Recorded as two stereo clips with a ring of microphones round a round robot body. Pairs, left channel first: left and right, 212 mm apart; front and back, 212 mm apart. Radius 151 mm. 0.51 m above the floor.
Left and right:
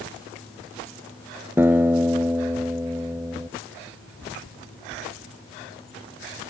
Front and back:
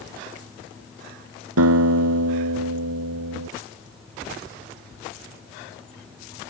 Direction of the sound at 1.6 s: 175° right.